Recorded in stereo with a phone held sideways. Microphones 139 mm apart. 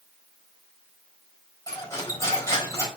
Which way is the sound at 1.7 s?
25° left (ahead or behind).